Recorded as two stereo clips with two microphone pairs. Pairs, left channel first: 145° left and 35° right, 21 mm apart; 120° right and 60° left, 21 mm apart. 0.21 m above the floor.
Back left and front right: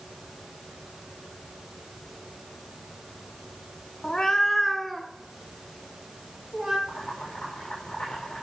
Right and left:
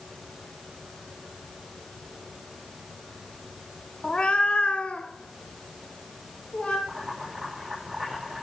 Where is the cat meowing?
165° right, 0.6 m; by 6.8 s 110° right, 2.5 m.